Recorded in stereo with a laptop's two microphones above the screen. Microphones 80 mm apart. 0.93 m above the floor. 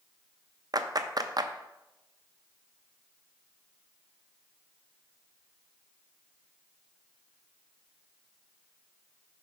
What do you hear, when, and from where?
0.7 s a clap: 50° right (ahead or behind), 0.5 m